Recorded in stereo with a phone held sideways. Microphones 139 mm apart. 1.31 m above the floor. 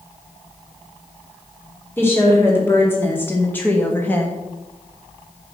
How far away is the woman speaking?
About 3 m.